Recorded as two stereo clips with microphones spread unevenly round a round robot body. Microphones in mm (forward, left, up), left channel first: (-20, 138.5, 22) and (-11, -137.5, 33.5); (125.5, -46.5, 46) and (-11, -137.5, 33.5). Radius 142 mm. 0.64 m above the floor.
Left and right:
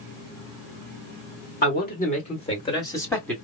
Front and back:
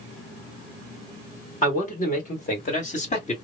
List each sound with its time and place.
1.6 s a man speaking: 55° left, 1.8 m; by 3.4 s 10° left, 1.7 m